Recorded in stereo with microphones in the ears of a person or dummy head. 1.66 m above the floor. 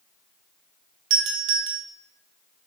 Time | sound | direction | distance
1.1 | a doorbell | 70° right (ahead or behind) | 0.6 m